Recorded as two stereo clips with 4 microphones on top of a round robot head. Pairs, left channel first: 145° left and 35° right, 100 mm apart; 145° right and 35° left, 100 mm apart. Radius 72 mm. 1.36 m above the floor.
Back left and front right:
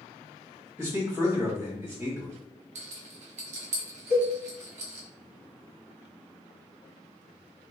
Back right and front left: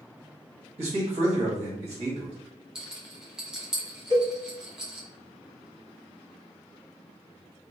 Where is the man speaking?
25° left, 1.1 m.